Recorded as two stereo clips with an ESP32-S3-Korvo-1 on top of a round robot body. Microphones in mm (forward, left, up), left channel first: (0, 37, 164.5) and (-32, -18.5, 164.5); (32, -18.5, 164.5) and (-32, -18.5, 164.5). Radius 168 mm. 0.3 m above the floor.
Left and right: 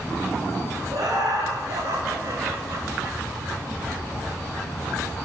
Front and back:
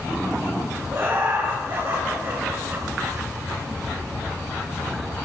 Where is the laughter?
130° right, 3 m; by 3.2 s 140° right, 1.9 m.